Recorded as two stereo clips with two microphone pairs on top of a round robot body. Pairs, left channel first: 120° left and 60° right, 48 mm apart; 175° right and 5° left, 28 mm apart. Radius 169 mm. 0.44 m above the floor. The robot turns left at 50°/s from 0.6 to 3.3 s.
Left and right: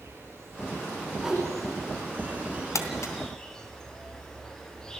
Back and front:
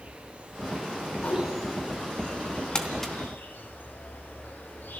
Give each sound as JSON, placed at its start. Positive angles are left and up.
{"t": 0.0, "sound": "an insect", "azimuth_deg": -30, "distance_m": 4.5}
{"t": 1.2, "sound": "a whoosh", "azimuth_deg": -130, "distance_m": 4.0}
{"t": 2.8, "sound": "crumpling", "azimuth_deg": 120, "distance_m": 3.0}